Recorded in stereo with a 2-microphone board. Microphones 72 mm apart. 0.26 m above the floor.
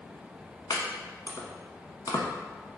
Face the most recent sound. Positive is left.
turn(degrees=70)  # may be behind; listen again after turning